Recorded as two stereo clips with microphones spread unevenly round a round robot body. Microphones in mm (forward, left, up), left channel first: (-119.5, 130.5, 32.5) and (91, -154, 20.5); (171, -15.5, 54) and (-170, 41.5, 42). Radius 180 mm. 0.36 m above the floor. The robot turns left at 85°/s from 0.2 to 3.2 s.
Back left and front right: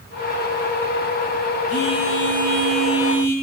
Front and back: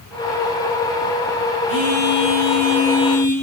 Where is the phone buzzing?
160° right, 9 m; by 3.3 s 70° left, 9 m.